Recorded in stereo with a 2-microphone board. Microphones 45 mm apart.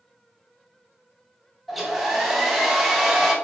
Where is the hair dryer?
Centre (ahead or behind), 1.0 m.